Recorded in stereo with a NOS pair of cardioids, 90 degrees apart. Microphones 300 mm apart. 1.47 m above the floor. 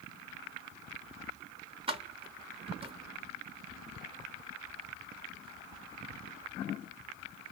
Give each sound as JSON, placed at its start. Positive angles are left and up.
{"t": 1.9, "sound": "keys jangling", "azimuth_deg": -20, "distance_m": 1.0}